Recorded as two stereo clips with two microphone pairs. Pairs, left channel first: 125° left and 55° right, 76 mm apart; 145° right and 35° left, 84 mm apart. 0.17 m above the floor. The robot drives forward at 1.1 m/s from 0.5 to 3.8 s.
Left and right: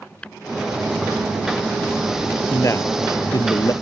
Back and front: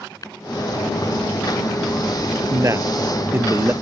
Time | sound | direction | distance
0.2 | tapping | 165° right | ?
2.5 | a man speaking | 80° left | ?